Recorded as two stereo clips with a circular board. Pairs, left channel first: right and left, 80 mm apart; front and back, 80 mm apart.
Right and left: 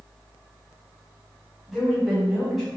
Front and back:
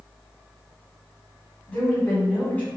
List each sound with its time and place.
1.7 s a woman speaking: 10° left, 1.5 m